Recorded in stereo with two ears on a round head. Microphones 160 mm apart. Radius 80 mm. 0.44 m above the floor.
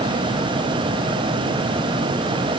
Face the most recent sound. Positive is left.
No sound to turn to.